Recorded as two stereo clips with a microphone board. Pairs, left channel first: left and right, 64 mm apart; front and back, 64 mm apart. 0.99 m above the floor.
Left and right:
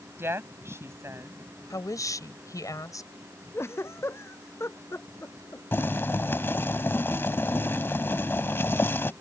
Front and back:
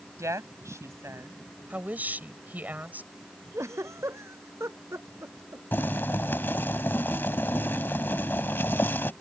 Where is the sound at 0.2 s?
140° right; by 1.4 s 135° right.